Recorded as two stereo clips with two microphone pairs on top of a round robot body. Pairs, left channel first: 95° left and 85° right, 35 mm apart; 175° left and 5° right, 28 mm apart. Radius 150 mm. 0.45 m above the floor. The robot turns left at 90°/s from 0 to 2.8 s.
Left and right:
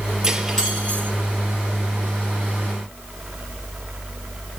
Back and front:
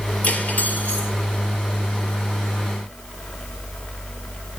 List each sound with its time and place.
0.2 s cutlery clinking: 160° right, 8 m; by 1.1 s 125° left, 8 m